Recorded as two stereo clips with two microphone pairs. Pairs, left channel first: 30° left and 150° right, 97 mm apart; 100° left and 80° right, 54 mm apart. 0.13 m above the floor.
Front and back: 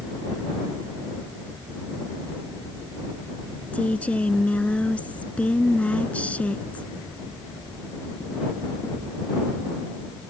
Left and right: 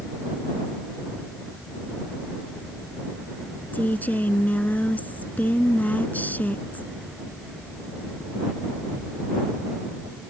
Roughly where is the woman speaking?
Left.